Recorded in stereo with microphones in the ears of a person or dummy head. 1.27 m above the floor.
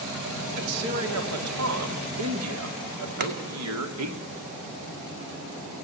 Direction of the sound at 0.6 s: 85° right.